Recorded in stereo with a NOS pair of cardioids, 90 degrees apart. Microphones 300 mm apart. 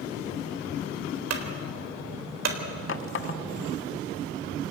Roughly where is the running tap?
Ahead left.